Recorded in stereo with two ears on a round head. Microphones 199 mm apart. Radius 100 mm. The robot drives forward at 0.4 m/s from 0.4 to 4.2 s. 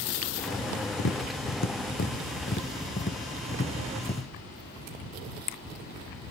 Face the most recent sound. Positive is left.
turn(degrees=25)  # may be behind; listen again after turning